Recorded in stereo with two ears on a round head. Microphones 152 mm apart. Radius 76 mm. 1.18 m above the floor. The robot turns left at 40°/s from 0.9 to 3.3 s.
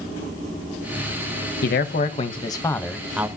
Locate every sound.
1.6 s a man speaking: 55° left, 0.8 m; by 3.3 s 10° right, 0.8 m